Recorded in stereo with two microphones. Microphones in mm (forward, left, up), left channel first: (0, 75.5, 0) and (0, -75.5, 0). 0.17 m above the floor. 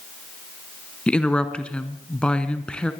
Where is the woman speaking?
5° left (ahead or behind), 1.4 m.